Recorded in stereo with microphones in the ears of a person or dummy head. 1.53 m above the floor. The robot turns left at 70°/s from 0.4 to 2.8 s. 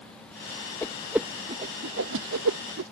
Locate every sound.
0.8 s a whoosh: 15° left (ahead or behind); by 2.9 s 55° right (ahead or behind)